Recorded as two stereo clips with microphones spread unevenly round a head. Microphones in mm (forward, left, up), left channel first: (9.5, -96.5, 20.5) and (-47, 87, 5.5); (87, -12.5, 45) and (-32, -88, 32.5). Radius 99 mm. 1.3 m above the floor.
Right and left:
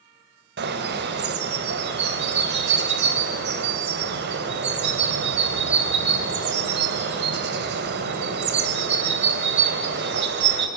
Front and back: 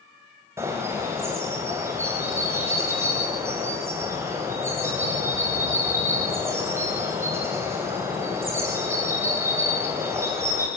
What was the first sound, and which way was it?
A bird, 135° left.